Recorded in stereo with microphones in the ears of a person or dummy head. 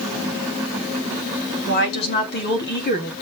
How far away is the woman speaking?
About 3 m.